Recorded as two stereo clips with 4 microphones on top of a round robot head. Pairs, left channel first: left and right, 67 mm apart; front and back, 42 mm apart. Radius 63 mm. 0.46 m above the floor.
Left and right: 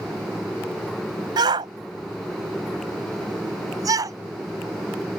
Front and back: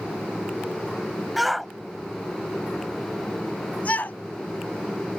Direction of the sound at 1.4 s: 90° right.